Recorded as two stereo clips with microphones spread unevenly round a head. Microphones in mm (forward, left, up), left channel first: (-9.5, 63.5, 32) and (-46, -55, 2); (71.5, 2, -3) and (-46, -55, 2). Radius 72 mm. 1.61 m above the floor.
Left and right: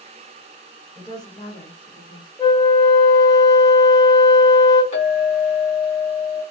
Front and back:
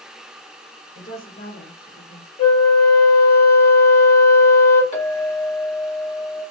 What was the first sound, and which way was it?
A woman speaking, 5° left.